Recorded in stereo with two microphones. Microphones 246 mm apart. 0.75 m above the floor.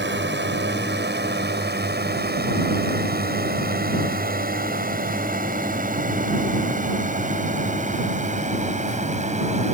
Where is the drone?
45° right (ahead or behind); by 9.7 s 30° right (ahead or behind).